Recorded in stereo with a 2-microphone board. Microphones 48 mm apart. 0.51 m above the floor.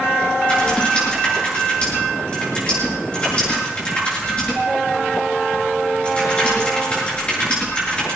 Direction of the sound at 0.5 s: 25° left (ahead or behind).